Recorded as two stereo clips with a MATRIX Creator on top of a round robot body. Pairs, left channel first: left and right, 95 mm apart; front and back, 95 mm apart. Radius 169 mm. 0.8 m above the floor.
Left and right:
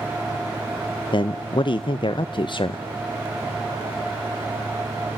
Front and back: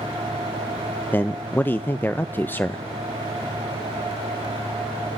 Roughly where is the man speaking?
Ahead left.